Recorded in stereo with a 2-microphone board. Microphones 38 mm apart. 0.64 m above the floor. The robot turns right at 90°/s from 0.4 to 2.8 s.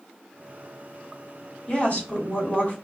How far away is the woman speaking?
About 1.7 m.